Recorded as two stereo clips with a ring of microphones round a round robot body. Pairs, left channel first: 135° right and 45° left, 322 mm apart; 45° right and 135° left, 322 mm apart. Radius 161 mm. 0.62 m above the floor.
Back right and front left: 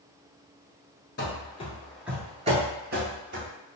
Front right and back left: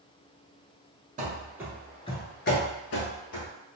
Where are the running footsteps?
175° right, 0.7 m; by 3.5 s 5° right, 1.1 m.